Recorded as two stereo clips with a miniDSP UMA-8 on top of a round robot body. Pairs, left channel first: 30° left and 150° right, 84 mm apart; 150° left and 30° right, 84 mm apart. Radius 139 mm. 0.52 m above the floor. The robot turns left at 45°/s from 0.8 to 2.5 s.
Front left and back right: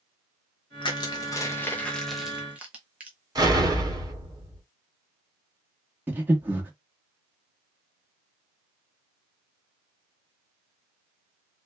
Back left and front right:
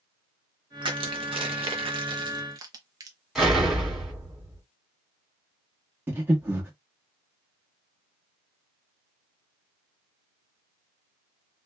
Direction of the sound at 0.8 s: Straight ahead.